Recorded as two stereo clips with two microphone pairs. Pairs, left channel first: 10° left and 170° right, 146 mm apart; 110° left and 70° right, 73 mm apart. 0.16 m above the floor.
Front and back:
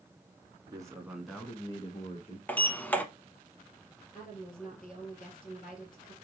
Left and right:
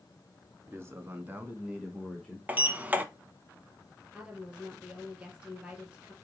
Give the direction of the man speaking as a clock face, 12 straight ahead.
4 o'clock.